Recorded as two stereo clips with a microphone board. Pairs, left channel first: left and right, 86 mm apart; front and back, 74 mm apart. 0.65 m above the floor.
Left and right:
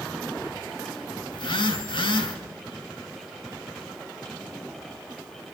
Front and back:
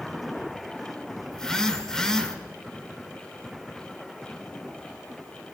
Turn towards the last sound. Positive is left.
turn(degrees=85)